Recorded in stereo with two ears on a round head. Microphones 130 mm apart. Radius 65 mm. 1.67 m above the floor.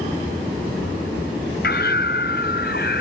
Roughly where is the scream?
Left.